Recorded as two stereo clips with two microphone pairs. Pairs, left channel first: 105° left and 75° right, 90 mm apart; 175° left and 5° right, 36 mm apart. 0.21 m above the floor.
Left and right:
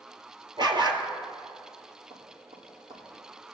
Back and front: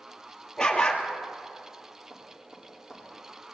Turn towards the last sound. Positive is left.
turn(degrees=-65)